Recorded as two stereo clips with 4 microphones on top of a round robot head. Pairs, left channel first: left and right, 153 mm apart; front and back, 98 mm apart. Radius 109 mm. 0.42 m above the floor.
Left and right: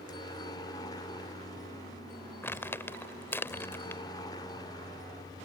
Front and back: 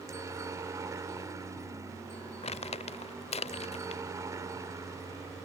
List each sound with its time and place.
0.0 s a helicopter: 140° left
2.4 s crumpling: 15° left